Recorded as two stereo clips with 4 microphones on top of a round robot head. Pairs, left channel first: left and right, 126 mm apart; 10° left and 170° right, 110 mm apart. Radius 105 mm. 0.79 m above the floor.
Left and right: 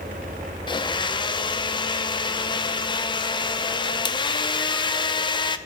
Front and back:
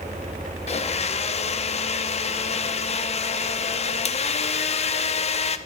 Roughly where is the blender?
Ahead left.